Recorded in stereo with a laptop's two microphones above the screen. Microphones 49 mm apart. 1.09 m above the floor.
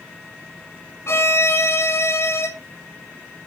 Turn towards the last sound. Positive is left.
turn(degrees=65)  # may be behind; listen again after turning